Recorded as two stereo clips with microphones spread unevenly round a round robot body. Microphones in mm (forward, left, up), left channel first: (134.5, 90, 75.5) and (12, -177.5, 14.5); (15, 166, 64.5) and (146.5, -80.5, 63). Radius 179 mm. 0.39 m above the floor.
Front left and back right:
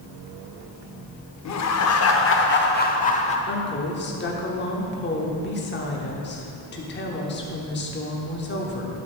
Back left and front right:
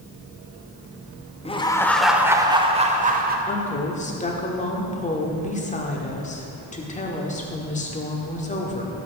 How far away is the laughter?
About 1.1 m.